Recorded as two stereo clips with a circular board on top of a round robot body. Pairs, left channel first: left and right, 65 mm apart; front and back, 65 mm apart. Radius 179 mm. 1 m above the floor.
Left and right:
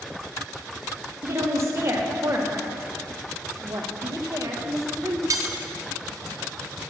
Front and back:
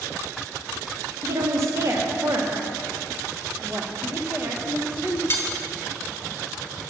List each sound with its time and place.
1.2 s a woman speaking: 140° right, 1.9 m
3.6 s a woman speaking: 120° right, 1.5 m
5.3 s cutlery clinking: 55° right, 1.2 m